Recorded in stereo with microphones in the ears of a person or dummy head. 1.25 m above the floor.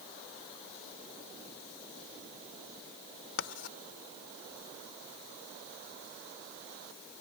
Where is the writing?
80° left.